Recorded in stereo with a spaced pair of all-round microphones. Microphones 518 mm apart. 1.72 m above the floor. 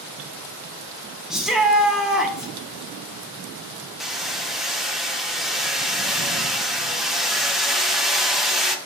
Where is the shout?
Centre (ahead or behind), 0.8 m.